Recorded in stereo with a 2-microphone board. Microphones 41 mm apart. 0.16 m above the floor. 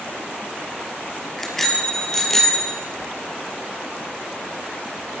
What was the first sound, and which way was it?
A bicycle bell, 5° left (ahead or behind).